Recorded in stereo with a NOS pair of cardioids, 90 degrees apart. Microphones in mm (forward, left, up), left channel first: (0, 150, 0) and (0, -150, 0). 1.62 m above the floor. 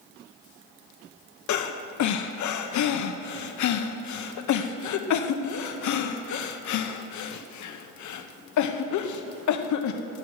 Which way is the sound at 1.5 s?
65° left.